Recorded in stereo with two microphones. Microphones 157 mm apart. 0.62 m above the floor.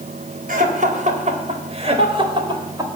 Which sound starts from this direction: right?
Laughter, at 0.5 s.